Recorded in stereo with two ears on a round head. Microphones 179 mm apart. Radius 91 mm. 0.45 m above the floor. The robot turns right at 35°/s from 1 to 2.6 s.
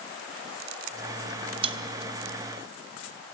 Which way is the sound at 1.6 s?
25° right (ahead or behind).